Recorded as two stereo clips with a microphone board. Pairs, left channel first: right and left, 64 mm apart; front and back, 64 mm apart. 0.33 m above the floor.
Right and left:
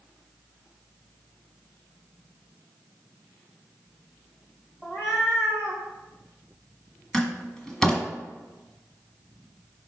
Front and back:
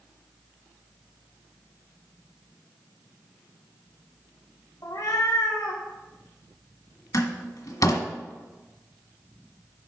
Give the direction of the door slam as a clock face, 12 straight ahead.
12 o'clock.